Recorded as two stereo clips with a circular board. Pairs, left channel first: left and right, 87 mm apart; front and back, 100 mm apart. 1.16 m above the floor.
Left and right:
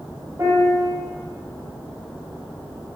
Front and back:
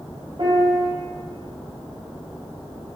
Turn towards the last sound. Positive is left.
turn(degrees=-145)